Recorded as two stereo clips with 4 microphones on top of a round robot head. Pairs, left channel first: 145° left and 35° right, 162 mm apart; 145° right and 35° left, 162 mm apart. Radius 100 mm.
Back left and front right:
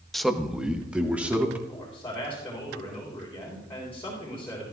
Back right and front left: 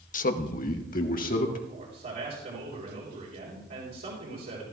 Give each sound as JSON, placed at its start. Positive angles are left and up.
{"t": 0.1, "sound": "a man speaking", "azimuth_deg": -125, "distance_m": 0.9}
{"t": 1.7, "sound": "a man speaking", "azimuth_deg": 70, "distance_m": 3.5}